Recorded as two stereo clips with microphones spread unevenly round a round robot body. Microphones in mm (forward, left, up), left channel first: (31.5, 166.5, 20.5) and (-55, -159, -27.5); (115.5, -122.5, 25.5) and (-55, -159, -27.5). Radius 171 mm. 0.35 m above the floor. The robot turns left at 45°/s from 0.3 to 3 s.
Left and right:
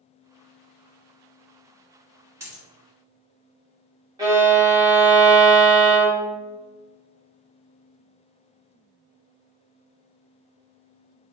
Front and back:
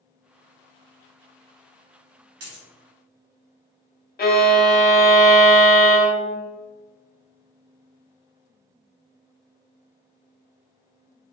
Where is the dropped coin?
175° left, 1.4 m; by 2.6 s 165° left, 1.4 m.